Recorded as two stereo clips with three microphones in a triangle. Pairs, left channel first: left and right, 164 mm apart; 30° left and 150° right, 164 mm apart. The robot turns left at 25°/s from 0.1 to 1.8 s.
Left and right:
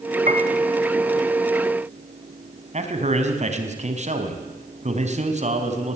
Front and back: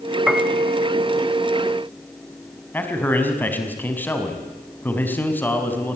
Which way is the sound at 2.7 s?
50° right.